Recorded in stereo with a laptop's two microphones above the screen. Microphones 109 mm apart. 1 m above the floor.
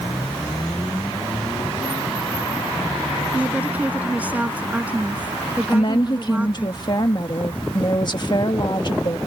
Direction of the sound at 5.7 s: 45° left (ahead or behind).